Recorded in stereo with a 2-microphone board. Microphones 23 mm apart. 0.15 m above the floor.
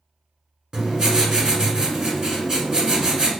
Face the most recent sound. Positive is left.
turn(degrees=-30)  # may be behind; listen again after turning